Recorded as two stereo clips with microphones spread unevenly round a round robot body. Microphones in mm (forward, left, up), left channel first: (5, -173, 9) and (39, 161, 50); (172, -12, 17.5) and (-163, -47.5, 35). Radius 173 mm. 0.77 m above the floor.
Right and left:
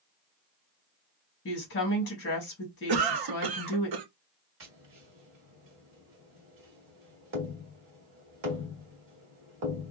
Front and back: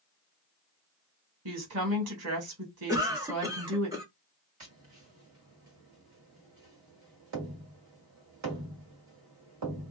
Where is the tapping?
140° left, 1.7 m.